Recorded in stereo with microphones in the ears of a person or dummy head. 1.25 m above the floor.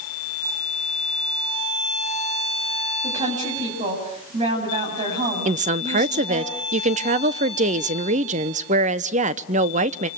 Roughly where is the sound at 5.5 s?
Right.